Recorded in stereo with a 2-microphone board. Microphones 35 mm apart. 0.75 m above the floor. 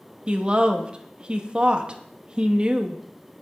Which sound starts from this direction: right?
A woman speaking, at 0.3 s.